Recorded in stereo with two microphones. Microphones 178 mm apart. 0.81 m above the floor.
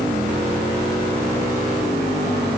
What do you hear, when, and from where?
Only background noise.